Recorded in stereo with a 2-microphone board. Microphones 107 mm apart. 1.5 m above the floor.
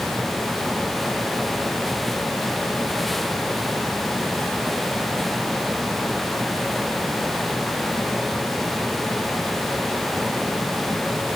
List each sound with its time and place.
Only background noise.